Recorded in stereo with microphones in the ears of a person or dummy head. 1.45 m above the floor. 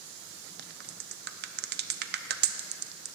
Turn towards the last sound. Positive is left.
turn(degrees=-50)  # may be behind; listen again after turning